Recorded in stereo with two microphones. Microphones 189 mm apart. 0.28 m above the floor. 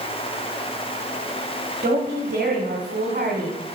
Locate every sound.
1.8 s a woman speaking: 45° right (ahead or behind), 1.6 m